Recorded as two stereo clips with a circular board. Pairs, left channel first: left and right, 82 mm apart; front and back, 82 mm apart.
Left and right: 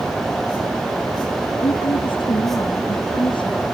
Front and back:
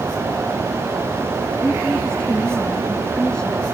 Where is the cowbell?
I don't hear a cowbell.